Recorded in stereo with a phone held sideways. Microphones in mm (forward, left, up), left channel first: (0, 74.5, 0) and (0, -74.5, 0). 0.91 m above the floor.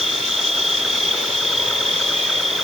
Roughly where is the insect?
Centre.